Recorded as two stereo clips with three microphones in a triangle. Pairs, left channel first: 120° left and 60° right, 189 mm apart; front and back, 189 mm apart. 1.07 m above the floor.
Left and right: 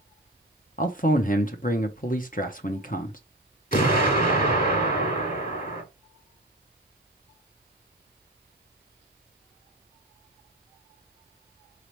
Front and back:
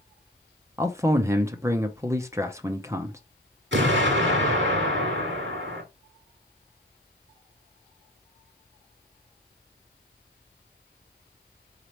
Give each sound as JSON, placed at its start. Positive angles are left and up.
{"t": 0.8, "sound": "a man speaking", "azimuth_deg": 110, "distance_m": 0.6}
{"t": 3.7, "sound": "an explosion", "azimuth_deg": 165, "distance_m": 1.6}